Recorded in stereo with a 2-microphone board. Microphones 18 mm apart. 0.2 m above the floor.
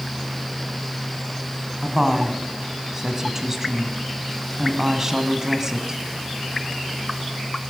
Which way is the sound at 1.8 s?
30° right (ahead or behind).